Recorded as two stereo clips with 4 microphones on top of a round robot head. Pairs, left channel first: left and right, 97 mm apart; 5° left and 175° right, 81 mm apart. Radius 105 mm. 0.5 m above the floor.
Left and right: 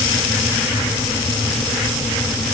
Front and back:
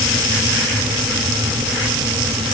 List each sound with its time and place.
Only background noise.